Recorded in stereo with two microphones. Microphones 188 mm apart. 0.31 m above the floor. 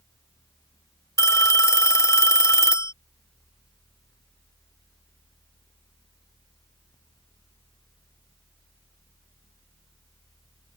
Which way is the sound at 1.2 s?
15° left (ahead or behind).